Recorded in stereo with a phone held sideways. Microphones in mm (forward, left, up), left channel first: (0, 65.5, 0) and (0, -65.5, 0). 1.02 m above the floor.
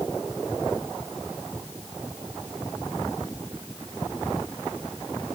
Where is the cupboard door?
No cupboard door in this recording.